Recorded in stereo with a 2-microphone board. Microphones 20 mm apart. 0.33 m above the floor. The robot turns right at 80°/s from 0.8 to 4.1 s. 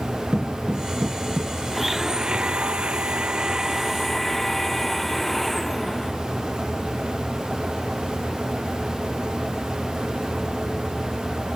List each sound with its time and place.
0.3 s footsteps: 55° right (ahead or behind); by 1.5 s 60° right (ahead or behind)
1.7 s a blender: straight behind; by 6.1 s 15° left